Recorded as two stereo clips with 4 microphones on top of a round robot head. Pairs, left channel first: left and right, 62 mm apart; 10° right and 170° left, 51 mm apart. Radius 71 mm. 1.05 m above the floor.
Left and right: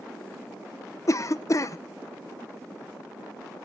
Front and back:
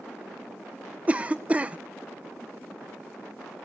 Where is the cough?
110° left, 0.7 m.